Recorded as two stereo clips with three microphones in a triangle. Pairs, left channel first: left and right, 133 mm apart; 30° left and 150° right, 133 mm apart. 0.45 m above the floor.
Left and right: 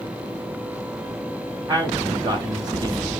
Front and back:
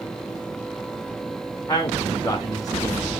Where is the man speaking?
30° right, 3.5 m.